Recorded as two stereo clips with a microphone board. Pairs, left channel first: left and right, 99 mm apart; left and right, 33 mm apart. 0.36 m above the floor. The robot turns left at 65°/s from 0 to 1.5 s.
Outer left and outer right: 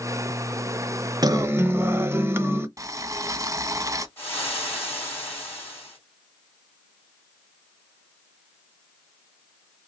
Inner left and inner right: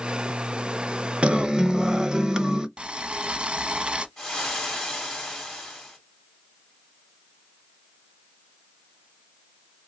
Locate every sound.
1.2 s a guitar: 40° right (ahead or behind), 0.5 m; by 2.7 s 25° right (ahead or behind), 0.5 m
2.8 s boiling: 35° right (ahead or behind), 0.5 m
4.2 s frying: 20° left (ahead or behind), 2.5 m